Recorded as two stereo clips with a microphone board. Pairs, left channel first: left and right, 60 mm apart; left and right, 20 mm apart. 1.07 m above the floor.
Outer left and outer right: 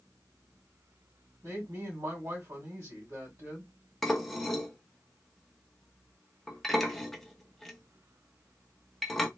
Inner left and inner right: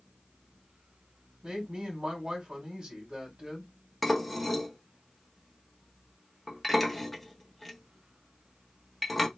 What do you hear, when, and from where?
1.4 s a woman speaking: 70° right (ahead or behind), 1.9 m
4.0 s dishes clattering: 5° left (ahead or behind), 0.7 m